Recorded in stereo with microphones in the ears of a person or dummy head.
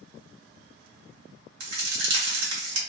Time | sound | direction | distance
1.6 | a crack | 65° right (ahead or behind) | 1.1 m